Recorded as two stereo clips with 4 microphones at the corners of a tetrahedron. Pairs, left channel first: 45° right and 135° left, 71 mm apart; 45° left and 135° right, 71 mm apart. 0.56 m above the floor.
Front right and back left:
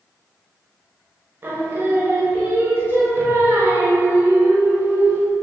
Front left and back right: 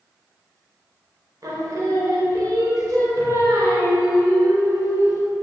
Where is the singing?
170° right, 0.7 m.